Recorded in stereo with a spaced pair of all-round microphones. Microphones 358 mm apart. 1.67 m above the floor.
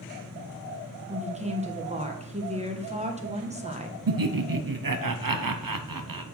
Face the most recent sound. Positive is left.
turn(degrees=-70)  # may be behind; listen again after turning